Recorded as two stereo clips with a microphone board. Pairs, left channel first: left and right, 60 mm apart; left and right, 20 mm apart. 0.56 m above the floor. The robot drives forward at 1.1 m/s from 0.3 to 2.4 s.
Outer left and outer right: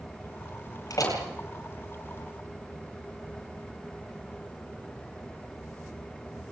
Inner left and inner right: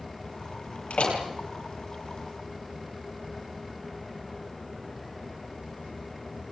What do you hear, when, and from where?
0.9 s a door slam: 70° left (ahead or behind), 9.5 m; by 1.2 s 75° left (ahead or behind), 9.5 m